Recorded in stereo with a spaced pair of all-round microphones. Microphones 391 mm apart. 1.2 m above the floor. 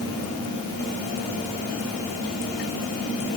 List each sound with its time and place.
Only background noise.